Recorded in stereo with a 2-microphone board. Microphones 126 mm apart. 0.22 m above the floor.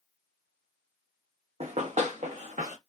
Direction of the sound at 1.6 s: 55° right (ahead or behind).